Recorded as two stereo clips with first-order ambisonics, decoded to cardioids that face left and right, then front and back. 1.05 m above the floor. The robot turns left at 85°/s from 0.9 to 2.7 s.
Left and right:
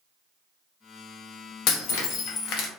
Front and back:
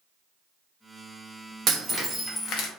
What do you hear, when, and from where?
1.7 s breaking glass: 125° left, 0.6 m; by 2.7 s 35° left, 0.6 m